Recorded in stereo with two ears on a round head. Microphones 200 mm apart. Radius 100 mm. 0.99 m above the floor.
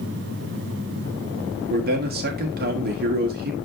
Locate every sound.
1.7 s a man speaking: 45° right (ahead or behind), 1.9 m